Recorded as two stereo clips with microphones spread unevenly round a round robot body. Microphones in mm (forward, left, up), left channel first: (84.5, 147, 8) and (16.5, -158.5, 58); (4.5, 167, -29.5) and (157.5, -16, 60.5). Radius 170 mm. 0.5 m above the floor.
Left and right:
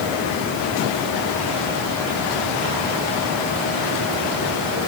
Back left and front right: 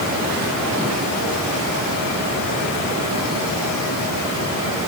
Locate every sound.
Only background noise.